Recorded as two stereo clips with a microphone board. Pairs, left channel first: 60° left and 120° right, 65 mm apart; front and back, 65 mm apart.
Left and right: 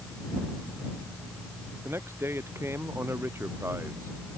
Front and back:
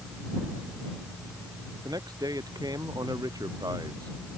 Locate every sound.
1.9 s a man speaking: 170° right